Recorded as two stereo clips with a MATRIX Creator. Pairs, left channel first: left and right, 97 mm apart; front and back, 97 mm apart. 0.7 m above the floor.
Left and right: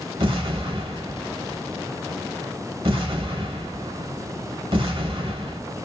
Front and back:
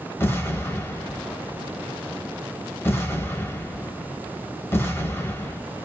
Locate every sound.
0.2 s an explosion: 65° right, 0.9 m